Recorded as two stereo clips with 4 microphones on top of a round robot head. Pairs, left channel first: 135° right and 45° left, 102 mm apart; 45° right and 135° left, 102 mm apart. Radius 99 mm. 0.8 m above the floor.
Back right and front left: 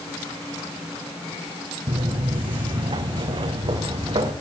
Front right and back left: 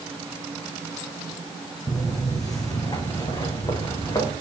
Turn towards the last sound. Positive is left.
turn(degrees=5)